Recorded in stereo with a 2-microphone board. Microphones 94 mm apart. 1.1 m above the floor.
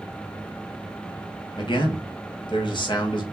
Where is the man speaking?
55° left (ahead or behind), 1.5 m.